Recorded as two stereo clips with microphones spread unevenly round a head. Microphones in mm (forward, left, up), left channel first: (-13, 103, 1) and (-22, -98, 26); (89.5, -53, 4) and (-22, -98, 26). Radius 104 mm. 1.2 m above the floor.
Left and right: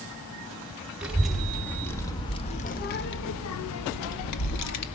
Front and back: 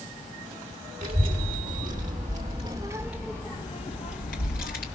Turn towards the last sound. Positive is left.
turn(degrees=70)